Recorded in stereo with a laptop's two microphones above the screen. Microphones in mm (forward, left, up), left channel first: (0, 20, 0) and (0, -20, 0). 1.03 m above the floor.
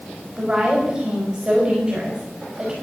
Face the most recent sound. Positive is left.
turn(degrees=-25)  # may be behind; listen again after turning